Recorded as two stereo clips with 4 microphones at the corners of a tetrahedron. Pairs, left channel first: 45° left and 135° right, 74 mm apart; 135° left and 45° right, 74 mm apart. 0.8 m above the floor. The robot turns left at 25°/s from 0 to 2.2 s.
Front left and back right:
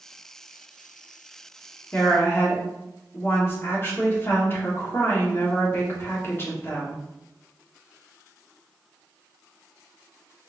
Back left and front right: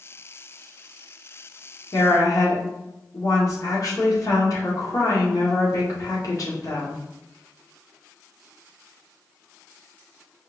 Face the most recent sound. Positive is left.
turn(degrees=100)